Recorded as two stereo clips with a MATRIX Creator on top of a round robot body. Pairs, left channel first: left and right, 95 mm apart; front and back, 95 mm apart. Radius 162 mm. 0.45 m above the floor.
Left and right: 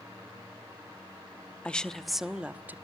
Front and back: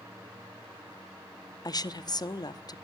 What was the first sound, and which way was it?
A woman speaking, 15° left.